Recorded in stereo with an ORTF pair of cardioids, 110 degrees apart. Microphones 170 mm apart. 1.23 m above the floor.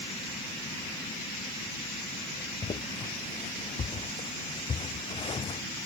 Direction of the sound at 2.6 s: 30° left.